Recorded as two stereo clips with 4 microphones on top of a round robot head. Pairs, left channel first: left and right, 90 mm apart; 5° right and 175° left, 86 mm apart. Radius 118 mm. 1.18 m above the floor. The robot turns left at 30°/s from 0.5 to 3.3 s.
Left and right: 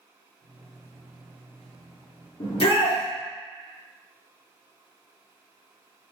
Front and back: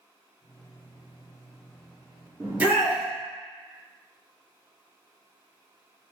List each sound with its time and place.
2.4 s a shout: 115° left, 1.1 m; by 3.0 s 95° left, 1.1 m